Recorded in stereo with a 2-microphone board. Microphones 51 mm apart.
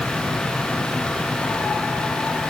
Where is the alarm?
No alarm in this recording.